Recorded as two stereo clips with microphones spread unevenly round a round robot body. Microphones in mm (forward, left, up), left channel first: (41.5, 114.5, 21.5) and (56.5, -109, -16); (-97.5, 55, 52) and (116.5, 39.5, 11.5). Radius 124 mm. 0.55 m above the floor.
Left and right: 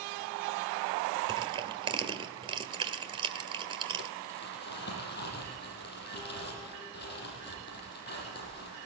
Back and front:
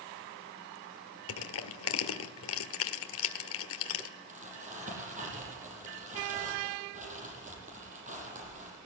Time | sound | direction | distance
1.3 | crushing | 155° right | 1.6 m
4.3 | crumpling | 50° left | 7.5 m